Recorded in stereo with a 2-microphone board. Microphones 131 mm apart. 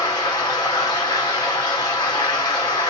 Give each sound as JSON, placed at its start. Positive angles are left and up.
{"t": 0.0, "sound": "running water", "side_deg": 35, "distance_m": 2.5}